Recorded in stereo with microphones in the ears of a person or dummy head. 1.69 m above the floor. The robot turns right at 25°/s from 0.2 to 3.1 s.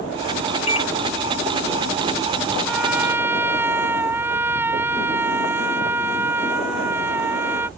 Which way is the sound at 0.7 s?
40° left (ahead or behind).